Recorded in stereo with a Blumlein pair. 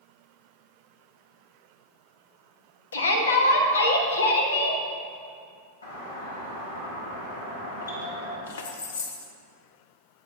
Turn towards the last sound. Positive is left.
turn(degrees=60)